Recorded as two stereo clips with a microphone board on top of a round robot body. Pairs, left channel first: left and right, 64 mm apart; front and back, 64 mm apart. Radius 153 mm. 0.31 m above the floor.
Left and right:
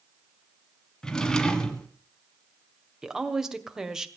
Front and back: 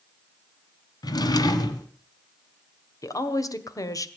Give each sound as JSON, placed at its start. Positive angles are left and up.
{"t": 1.0, "sound": "a drawer", "azimuth_deg": 10, "distance_m": 1.7}
{"t": 3.0, "sound": "a woman speaking", "azimuth_deg": -10, "distance_m": 2.0}